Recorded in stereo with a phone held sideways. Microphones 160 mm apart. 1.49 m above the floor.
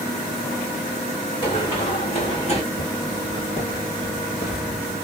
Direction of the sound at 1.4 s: 30° left (ahead or behind).